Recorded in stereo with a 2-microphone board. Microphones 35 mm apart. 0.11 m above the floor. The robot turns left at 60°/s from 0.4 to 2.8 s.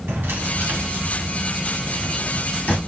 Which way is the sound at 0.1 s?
85° right.